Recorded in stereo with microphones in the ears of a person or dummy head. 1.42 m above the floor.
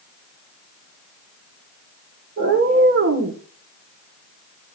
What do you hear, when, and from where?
2.4 s a cat meowing: 55° right (ahead or behind), 2 m